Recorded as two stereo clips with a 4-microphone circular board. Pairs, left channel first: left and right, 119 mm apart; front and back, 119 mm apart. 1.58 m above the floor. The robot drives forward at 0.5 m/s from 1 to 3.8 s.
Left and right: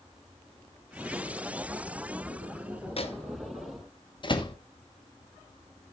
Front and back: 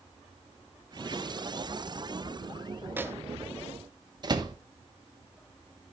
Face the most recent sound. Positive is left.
turn(degrees=130)